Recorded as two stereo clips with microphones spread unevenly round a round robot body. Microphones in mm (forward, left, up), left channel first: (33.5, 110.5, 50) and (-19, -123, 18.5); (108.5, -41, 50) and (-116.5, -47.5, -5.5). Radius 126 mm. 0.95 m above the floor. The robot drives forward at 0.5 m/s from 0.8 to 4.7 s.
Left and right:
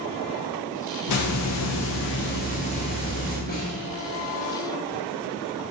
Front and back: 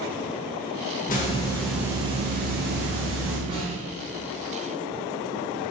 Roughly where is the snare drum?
Behind left.